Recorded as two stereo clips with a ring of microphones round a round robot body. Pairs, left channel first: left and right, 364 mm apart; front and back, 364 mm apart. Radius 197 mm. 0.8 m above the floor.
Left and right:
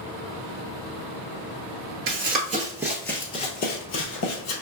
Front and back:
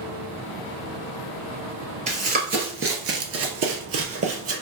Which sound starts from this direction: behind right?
Running footsteps, at 2.1 s.